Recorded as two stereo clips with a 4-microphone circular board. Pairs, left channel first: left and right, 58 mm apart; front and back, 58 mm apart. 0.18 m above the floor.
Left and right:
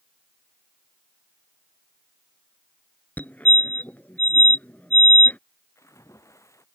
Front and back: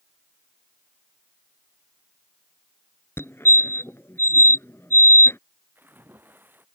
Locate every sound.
3.2 s a fire alarm: 35° left
5.8 s a splash: 125° left